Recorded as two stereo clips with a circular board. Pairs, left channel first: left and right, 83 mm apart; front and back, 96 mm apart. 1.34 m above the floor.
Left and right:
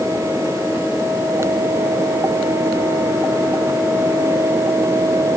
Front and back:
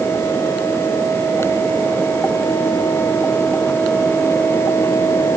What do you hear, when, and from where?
Only background noise.